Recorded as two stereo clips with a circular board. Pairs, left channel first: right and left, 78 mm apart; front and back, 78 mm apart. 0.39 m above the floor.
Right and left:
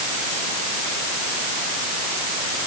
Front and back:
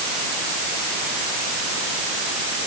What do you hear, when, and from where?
Only background noise.